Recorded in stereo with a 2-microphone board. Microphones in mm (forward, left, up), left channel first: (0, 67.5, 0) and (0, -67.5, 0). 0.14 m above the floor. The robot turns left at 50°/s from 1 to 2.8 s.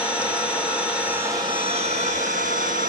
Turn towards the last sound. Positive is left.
turn(degrees=-95)